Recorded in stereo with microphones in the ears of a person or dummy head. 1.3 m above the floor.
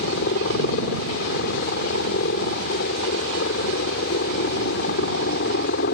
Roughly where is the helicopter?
Left.